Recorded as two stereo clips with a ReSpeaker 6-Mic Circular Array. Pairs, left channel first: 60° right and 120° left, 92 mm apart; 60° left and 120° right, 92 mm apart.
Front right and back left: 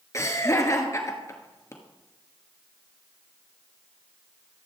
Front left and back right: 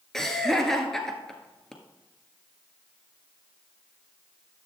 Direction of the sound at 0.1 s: 20° right.